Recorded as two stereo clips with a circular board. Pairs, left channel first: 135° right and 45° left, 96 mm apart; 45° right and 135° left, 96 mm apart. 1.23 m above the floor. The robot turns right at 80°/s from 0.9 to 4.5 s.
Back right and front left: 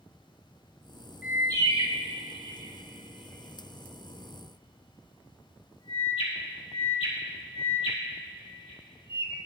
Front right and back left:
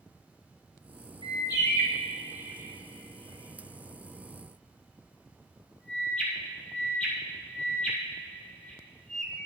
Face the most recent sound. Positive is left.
turn(degrees=-125)